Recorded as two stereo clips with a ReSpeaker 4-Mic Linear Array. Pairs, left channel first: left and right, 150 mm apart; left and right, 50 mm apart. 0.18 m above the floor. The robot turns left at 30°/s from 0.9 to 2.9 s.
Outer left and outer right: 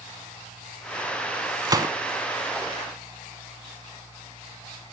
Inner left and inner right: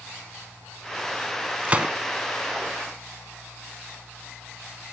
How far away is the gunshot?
About 0.8 m.